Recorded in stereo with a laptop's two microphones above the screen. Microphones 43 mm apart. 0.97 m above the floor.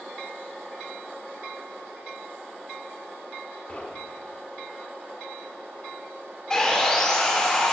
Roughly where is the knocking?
Left.